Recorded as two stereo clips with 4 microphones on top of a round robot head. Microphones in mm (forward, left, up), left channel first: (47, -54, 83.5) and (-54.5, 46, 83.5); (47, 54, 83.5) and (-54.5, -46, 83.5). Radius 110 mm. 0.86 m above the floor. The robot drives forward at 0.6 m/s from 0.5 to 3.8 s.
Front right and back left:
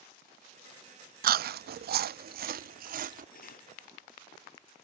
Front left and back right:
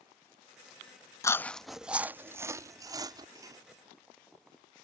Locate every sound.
1.2 s chewing: 115° left; by 3.2 s 160° left
3.4 s cutlery clinking: 65° right; by 3.7 s 70° right